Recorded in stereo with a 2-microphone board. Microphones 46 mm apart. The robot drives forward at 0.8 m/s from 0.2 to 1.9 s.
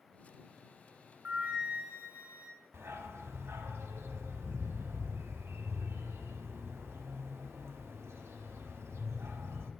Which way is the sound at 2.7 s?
80° right.